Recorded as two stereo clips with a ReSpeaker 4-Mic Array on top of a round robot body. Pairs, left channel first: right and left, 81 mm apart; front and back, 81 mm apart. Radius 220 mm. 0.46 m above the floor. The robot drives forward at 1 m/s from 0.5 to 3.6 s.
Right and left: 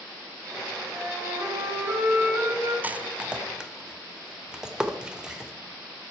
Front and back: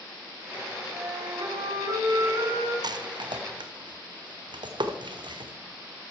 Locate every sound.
0.9 s a flute: 145° left, 5.5 m; by 2.7 s 155° left, 7 m
2.8 s a rattle: 155° left, 0.6 m; by 5.5 s 170° left, 1.3 m